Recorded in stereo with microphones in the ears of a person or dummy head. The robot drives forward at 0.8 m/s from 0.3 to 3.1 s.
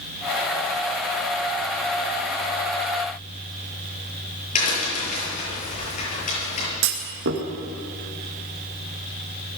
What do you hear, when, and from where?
4.5 s a crack: 40° left (ahead or behind), 9.5 m
6.8 s a clunk: 60° right (ahead or behind), 2.5 m